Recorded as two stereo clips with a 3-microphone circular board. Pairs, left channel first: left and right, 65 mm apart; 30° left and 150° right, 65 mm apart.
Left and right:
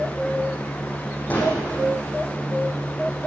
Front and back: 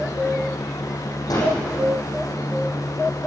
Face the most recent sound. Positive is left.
turn(degrees=25)